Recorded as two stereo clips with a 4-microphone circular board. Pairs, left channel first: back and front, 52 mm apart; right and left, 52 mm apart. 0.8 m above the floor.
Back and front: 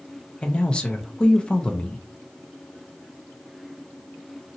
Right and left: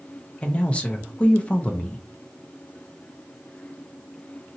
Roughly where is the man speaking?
Behind right.